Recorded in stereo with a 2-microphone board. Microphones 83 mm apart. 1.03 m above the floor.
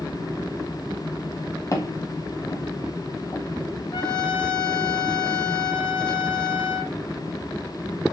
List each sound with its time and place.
1.7 s footsteps: 40° left (ahead or behind), 1.7 m; by 3.4 s 35° left (ahead or behind), 2 m
3.9 s a trumpet: 70° left (ahead or behind), 1.7 m